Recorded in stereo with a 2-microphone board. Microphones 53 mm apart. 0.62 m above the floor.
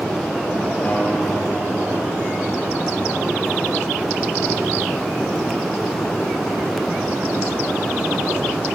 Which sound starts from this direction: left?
A guitar, at 0.8 s.